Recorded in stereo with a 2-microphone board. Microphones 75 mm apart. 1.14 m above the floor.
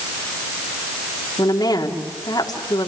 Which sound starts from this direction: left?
A woman speaking, at 1.4 s.